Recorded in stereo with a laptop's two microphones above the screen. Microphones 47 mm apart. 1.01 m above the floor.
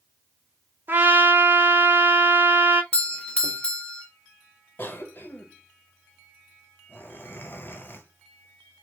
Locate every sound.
0.9 s a trumpet: 45° right (ahead or behind), 1.0 m
2.9 s a doorbell: 25° left (ahead or behind), 0.8 m
4.8 s a cough: 50° left (ahead or behind), 1.0 m